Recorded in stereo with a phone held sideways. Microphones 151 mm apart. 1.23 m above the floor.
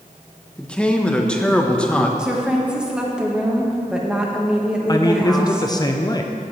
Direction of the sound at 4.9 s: 25° left (ahead or behind).